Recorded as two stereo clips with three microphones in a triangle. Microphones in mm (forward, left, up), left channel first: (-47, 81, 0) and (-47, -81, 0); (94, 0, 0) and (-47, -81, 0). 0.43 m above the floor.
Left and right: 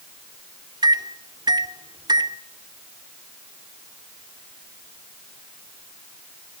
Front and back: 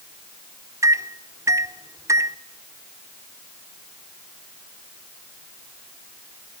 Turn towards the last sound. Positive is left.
turn(degrees=-100)